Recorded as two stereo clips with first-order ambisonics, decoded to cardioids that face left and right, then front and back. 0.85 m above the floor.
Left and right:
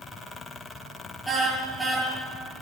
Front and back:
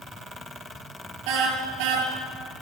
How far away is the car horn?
About 6.5 m.